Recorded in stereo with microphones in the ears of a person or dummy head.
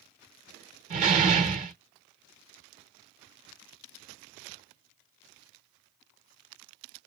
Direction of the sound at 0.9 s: 40° right (ahead or behind).